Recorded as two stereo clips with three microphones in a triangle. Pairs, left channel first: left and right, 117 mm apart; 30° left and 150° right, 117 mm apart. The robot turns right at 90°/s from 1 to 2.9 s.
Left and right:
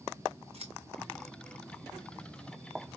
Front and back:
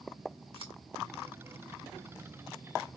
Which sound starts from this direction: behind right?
Scissors, at 0.5 s.